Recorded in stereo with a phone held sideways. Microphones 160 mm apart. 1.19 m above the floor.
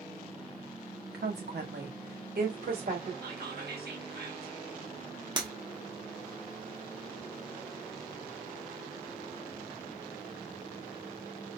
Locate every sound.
1.1 s a woman speaking: 75° right (ahead or behind), 0.8 m; by 3.1 s 65° right (ahead or behind), 1.6 m
3.2 s whispering: 80° right, 1.0 m
5.4 s breaking glass: 30° right (ahead or behind), 0.8 m